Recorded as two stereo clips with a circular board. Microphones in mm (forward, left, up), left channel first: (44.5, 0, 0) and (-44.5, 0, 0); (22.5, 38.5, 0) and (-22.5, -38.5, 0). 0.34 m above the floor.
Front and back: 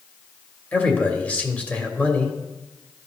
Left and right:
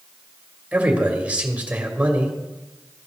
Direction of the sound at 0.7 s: 60° right.